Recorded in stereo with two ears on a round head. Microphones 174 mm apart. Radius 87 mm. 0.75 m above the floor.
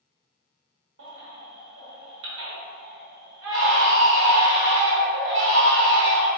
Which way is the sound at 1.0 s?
65° right (ahead or behind).